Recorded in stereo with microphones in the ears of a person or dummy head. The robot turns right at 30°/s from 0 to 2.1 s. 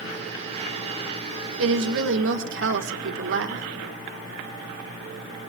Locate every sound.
1.6 s a woman speaking: 80° right, 1.2 m